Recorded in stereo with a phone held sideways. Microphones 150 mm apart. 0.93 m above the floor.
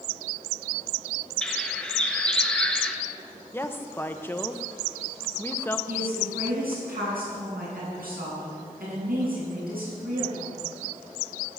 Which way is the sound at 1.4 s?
5° left (ahead or behind).